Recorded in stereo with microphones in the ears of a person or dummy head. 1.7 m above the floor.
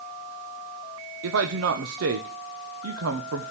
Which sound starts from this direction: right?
A man speaking, at 1.2 s.